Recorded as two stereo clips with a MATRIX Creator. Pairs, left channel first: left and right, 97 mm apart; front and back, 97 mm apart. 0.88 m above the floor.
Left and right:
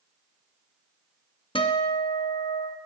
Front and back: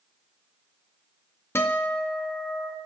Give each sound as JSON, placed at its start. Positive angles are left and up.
{"t": 1.6, "sound": "a guitar", "azimuth_deg": 65, "distance_m": 0.9}